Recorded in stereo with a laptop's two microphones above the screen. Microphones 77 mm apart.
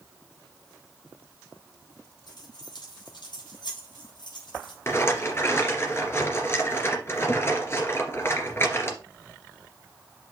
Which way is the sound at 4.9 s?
35° left (ahead or behind).